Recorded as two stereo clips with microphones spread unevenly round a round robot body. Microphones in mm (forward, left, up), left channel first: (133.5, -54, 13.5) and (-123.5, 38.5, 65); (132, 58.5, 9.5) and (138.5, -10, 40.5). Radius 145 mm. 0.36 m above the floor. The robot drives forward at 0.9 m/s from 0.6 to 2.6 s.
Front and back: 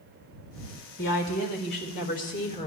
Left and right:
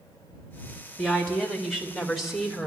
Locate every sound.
1.0 s a woman speaking: 15° left, 3.5 m; by 2.7 s 30° left, 2 m